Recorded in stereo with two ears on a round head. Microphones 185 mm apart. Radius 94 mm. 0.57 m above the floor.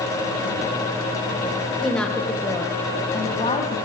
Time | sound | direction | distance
1.8 | a woman speaking | centre (ahead or behind) | 3 m